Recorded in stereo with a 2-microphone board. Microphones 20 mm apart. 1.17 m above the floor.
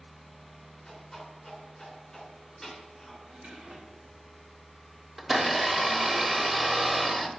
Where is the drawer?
65° right (ahead or behind), 1.9 m.